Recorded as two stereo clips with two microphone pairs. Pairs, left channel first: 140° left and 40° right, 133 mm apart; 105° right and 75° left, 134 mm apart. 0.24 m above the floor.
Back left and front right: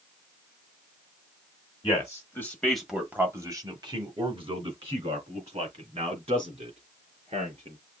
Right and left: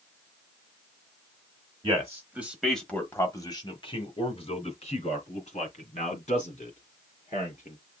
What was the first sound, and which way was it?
A man speaking, 110° left.